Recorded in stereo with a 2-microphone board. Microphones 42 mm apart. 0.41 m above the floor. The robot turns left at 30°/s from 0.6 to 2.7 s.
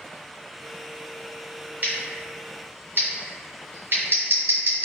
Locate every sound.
1.8 s scissors: 40° right (ahead or behind), 1.1 m; by 4.8 s 60° right (ahead or behind), 1.1 m